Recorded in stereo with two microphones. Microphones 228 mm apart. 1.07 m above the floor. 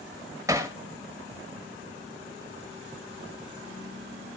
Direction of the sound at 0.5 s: 15° right (ahead or behind).